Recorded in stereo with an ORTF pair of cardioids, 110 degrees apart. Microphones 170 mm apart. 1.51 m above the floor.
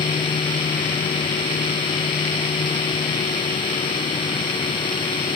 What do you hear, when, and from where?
0.0 s a machine running: 30° left, 1.1 m